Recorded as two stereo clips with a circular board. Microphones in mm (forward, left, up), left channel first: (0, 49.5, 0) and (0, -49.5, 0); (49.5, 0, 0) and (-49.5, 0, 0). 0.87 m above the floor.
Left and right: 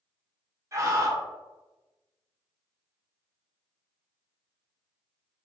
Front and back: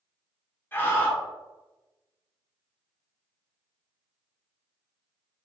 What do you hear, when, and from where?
0.7 s a scream: 55° right, 0.7 m